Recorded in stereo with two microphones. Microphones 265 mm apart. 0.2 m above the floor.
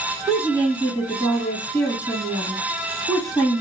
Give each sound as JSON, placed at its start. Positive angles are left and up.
{"t": 0.3, "sound": "a woman speaking", "side_deg": 10, "distance_m": 1.6}